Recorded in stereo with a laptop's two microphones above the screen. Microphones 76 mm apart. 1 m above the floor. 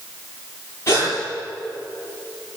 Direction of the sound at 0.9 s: 40° left (ahead or behind).